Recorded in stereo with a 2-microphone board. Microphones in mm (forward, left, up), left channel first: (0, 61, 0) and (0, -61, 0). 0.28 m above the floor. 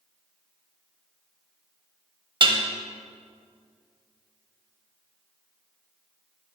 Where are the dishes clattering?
45° right (ahead or behind), 0.8 m.